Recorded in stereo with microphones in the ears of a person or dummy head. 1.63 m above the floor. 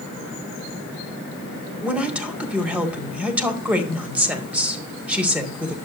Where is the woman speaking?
10° right (ahead or behind), 2 m.